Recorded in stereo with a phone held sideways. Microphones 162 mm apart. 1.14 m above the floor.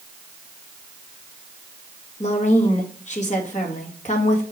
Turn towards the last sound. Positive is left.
turn(degrees=45)  # may be behind; listen again after turning